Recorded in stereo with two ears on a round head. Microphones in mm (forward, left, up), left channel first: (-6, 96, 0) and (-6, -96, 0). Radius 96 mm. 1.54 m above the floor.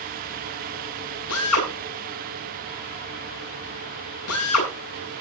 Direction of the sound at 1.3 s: 85° left.